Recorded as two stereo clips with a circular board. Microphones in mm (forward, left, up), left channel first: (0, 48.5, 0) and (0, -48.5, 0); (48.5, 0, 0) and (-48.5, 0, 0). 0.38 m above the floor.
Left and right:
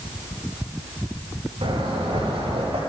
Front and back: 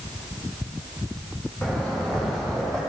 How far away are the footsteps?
About 4.5 m.